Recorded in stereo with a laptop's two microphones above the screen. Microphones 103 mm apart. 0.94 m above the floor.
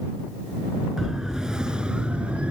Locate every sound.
1.0 s a siren: 5° right (ahead or behind); by 2.5 s 10° right (ahead or behind)